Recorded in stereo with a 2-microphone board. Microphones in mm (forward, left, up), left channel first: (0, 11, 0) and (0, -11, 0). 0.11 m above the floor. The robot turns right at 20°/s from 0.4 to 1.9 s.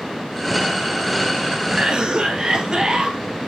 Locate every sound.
1.7 s a cough: 45° right (ahead or behind), 1.9 m; by 3.2 s 40° right (ahead or behind), 1.9 m